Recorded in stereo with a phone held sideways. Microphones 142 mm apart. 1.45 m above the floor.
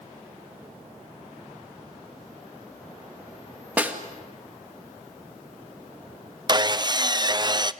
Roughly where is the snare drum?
Centre.